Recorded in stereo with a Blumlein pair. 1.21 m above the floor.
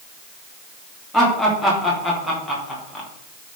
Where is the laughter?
5° left, 3 m.